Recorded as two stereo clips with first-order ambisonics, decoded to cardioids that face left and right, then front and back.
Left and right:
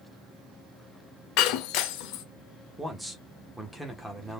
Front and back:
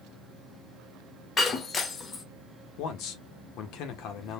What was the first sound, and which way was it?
Breaking glass, 65° left.